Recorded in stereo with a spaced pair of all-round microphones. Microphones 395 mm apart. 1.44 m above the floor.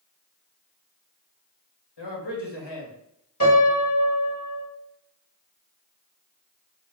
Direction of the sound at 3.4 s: 40° left (ahead or behind).